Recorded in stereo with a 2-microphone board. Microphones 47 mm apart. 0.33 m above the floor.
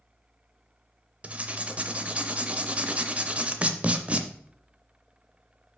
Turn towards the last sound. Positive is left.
turn(degrees=-30)  # may be behind; listen again after turning